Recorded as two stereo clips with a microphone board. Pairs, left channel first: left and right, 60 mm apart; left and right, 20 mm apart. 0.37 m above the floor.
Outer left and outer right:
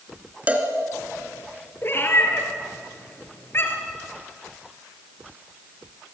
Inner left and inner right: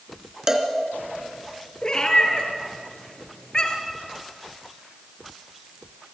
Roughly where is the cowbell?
Right.